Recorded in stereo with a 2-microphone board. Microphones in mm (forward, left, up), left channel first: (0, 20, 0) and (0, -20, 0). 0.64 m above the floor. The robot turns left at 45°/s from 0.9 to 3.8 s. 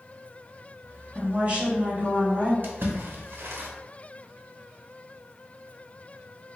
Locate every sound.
1.1 s a woman speaking: 45° right, 1.1 m; by 2.5 s 110° right, 1.1 m
2.6 s a splash: 50° right (ahead or behind), 0.6 m; by 3.7 s 60° right (ahead or behind), 0.6 m